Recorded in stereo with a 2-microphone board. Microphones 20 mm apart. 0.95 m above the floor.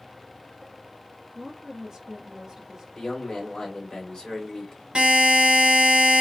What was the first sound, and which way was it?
A woman speaking, 15° right (ahead or behind).